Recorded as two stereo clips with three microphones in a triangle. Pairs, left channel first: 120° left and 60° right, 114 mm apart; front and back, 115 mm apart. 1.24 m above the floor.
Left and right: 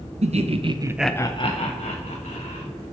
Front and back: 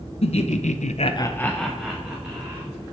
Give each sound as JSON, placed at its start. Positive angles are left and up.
{"t": 0.2, "sound": "laughter", "azimuth_deg": -35, "distance_m": 1.1}